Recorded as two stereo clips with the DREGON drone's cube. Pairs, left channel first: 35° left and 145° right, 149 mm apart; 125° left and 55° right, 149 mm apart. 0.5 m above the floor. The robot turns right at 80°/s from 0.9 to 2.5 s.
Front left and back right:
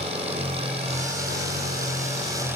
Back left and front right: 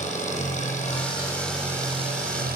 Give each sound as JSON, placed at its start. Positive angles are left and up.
{"t": 0.0, "sound": "an engine running", "azimuth_deg": 165, "distance_m": 9.0}